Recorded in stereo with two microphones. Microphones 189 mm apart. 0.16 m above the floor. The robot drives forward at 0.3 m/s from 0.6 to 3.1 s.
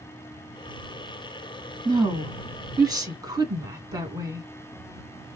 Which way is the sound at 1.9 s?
20° right (ahead or behind).